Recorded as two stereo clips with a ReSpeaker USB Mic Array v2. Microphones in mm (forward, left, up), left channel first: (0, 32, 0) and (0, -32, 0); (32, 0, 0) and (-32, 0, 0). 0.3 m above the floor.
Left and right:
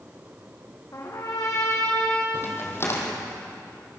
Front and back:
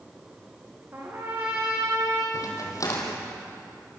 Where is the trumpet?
130° left, 6 m.